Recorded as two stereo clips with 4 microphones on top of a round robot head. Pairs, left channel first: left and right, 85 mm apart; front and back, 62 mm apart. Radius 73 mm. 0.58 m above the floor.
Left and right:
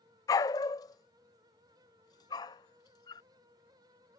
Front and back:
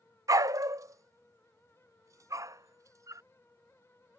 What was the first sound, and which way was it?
A dog barking, 145° left.